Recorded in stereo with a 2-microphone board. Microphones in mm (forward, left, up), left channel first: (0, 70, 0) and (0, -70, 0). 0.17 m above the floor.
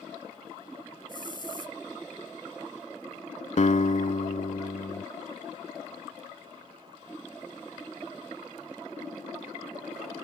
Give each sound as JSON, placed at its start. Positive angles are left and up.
{"t": 1.1, "sound": "a hiss", "side_deg": 35}
{"t": 3.6, "sound": "a guitar", "side_deg": 55}